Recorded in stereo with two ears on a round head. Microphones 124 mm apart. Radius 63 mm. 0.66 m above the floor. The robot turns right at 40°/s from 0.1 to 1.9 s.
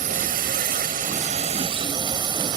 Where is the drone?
105° right; by 2.6 s 35° right.